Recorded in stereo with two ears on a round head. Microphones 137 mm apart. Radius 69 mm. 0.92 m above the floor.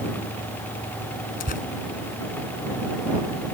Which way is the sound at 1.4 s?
55° left (ahead or behind).